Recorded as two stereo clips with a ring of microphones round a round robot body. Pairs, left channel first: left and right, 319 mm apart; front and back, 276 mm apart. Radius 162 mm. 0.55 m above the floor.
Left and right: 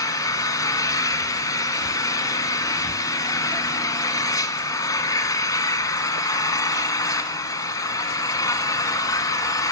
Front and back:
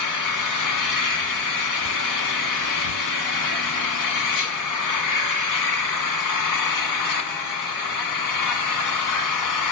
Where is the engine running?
10° left, 1.6 m.